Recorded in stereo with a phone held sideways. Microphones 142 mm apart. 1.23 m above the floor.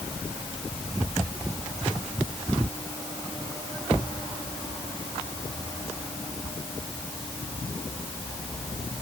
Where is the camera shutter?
I don't hear a camera shutter.